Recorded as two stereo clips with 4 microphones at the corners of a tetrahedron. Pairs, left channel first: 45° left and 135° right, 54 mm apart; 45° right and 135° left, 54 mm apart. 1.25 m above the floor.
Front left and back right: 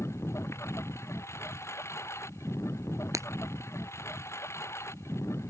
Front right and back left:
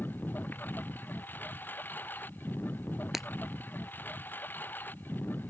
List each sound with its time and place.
0.0 s a lawn mower: 10° left
3.1 s breaking glass: 140° right